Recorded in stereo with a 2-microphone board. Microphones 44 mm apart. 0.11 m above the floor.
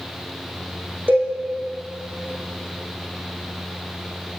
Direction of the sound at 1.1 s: 45° right (ahead or behind).